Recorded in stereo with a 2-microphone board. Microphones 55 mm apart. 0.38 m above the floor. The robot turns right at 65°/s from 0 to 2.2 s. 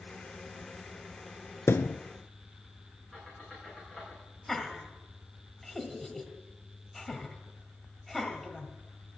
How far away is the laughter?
About 1.8 m.